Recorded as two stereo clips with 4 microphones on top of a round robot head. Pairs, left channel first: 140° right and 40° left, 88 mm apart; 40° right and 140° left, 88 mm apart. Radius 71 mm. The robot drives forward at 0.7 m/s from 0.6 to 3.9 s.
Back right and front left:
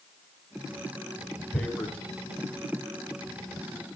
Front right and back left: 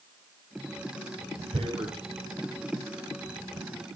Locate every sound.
1.5 s tearing paper: 145° left, 4.5 m; by 2.0 s 150° left, 5 m